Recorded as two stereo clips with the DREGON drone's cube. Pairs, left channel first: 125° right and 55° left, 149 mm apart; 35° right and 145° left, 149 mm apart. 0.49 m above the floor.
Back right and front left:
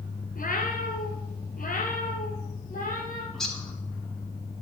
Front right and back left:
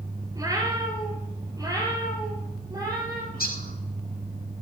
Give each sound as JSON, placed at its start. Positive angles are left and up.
{"t": 0.3, "sound": "a cat meowing", "azimuth_deg": -145, "distance_m": 1.8}
{"t": 3.3, "sound": "a bird", "azimuth_deg": -35, "distance_m": 2.0}